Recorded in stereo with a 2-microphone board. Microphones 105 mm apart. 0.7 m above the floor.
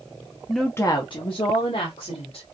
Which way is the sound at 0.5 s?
5° right (ahead or behind).